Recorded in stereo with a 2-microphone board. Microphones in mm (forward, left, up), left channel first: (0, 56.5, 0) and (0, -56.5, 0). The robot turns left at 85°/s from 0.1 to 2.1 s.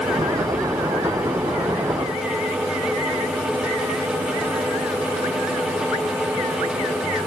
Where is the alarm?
No alarm in this recording.